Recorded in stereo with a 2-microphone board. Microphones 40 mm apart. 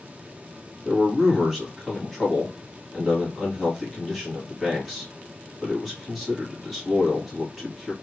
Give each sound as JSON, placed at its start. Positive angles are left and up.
{"t": 0.8, "sound": "a man speaking", "side_deg": -5, "distance_m": 2.0}